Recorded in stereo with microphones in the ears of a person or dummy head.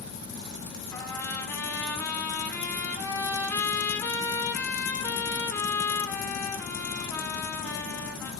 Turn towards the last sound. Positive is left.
turn(degrees=20)  # may be behind; listen again after turning